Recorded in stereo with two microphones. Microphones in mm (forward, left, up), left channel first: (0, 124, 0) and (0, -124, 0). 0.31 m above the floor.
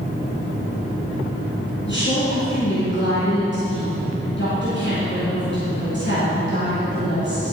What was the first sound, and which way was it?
A woman speaking, 50° left (ahead or behind).